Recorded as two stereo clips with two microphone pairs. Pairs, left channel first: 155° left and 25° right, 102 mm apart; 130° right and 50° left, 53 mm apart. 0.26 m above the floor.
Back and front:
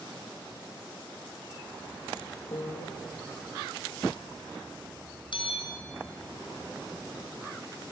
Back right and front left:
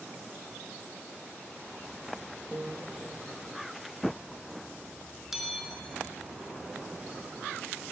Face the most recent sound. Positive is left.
turn(degrees=130)